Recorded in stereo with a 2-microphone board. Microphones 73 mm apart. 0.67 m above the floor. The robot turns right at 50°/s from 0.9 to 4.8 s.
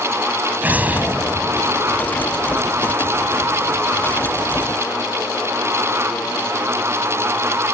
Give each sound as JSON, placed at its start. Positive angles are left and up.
{"t": 0.6, "sound": "an explosion", "azimuth_deg": -155}